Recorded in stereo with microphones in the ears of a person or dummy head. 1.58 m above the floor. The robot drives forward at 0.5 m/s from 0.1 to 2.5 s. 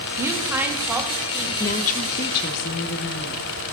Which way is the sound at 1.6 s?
50° left (ahead or behind).